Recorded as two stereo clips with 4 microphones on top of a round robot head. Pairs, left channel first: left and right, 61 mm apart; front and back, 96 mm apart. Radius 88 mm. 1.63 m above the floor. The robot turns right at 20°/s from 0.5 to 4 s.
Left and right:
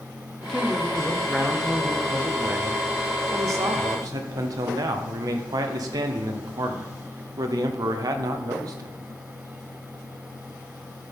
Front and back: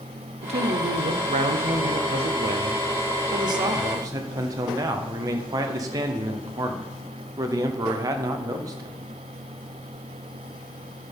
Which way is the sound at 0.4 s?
170° left.